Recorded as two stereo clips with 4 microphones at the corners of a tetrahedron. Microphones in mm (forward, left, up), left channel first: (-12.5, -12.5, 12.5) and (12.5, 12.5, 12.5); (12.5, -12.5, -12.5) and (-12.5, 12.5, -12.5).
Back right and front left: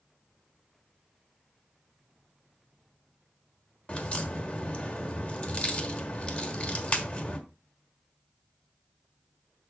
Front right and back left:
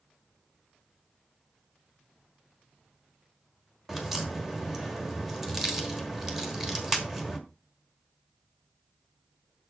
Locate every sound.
3.9 s a crack: 145° right, 1.3 m